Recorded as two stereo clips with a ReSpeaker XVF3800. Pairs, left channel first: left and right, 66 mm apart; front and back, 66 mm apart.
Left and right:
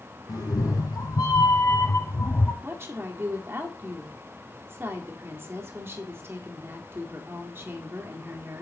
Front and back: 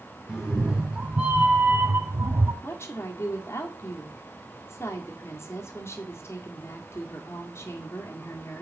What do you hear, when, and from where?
0.3 s a cat meowing: 100° left, 2 m; by 2.5 s 155° left, 0.8 m
2.6 s a woman speaking: 45° right, 1.9 m